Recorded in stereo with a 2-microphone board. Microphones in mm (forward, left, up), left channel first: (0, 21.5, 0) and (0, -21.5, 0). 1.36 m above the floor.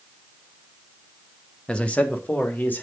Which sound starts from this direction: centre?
A man speaking, at 1.7 s.